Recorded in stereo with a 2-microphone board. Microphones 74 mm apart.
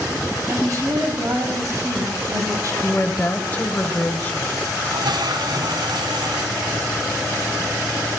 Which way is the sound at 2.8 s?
20° left (ahead or behind).